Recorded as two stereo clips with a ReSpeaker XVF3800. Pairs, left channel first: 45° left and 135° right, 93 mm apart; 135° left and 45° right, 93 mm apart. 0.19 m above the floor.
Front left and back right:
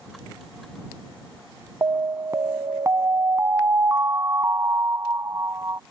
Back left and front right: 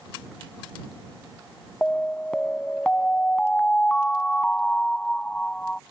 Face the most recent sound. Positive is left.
turn(degrees=-155)